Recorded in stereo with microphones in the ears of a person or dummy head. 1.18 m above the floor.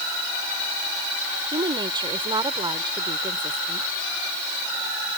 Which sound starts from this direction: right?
A woman speaking, at 1.5 s.